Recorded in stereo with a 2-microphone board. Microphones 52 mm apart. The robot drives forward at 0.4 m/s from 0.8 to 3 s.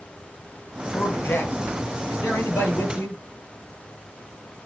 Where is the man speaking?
45° left (ahead or behind), 3.5 m; by 3.2 s 55° left (ahead or behind), 3 m.